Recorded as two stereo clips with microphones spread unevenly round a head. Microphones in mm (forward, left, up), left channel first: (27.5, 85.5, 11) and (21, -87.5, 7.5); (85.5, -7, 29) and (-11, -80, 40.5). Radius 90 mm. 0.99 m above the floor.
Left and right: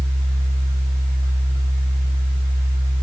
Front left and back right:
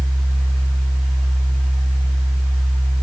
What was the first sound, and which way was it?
A fan, 55° right.